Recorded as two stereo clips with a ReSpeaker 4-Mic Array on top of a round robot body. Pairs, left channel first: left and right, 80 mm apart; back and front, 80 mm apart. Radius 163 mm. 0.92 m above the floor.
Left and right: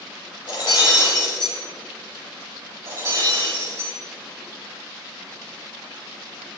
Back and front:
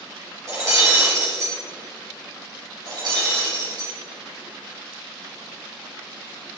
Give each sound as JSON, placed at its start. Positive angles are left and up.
{"t": 0.5, "sound": "breaking glass", "azimuth_deg": 55, "distance_m": 7.5}
{"t": 2.9, "sound": "breaking glass", "azimuth_deg": -35, "distance_m": 7.0}